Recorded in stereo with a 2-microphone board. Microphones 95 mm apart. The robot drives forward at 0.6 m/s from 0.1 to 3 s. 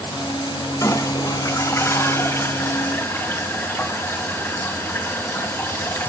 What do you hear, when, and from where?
0.8 s a toilet flushing: 35° left (ahead or behind), 1.6 m; by 6.1 s 25° left (ahead or behind), 2.5 m